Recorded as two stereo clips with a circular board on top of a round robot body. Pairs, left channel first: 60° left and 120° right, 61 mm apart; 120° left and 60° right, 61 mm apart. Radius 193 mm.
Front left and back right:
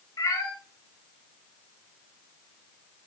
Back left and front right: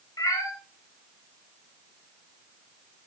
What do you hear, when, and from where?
0.2 s a cat meowing: 90° left, 2 m